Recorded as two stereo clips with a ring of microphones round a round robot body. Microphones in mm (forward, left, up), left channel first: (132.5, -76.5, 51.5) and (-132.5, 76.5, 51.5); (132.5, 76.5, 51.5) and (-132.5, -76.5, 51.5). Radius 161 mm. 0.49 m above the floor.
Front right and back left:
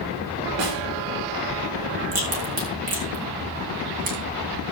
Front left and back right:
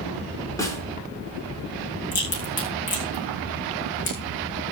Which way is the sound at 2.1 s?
85° left.